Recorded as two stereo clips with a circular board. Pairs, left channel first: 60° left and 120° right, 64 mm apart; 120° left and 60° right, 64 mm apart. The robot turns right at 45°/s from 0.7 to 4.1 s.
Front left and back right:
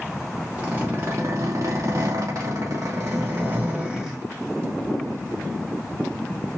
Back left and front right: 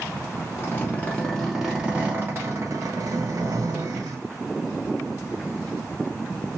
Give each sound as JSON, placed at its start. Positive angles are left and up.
{"t": 0.6, "sound": "a zipper", "azimuth_deg": 175, "distance_m": 2.5}